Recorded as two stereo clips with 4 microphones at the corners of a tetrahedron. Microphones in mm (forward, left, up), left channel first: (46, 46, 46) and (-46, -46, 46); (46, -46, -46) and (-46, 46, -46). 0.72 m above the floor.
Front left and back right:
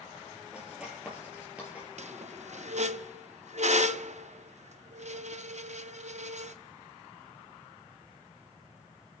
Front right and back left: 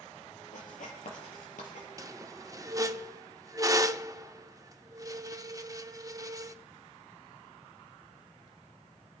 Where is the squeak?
160° right, 0.5 m.